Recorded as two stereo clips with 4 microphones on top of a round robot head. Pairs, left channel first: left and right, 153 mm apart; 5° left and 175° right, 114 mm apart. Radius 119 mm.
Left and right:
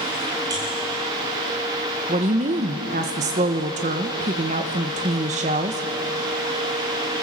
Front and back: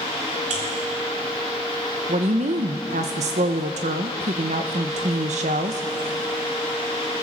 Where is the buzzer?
160° right, 2.5 m.